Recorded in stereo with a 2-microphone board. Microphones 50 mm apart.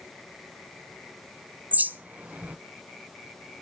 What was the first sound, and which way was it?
A bird, 35° right (ahead or behind).